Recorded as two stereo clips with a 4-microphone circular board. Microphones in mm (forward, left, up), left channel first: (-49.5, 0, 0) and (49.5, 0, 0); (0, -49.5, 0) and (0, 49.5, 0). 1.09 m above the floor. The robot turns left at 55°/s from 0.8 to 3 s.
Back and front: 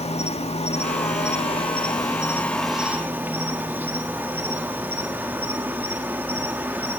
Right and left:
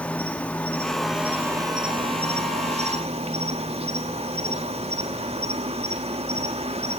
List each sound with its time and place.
0.0 s an insect: 170° right, 1.5 m; by 7.0 s 70° left, 1.5 m